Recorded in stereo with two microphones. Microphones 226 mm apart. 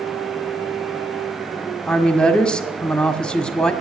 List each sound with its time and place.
1.9 s a woman speaking: 5° left (ahead or behind), 1.4 m